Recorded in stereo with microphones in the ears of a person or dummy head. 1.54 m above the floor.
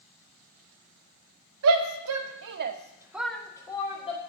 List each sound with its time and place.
1.6 s a shout: 75° right (ahead or behind), 1.2 m; by 4.2 s 25° left (ahead or behind), 1.5 m